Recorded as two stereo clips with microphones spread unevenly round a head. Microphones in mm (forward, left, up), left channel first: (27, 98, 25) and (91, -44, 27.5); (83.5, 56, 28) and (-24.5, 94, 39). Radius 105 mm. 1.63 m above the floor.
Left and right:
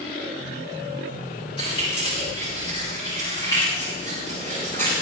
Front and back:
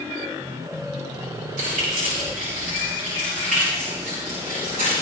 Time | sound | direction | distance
1.6 | keys jangling | 175° right | 6 m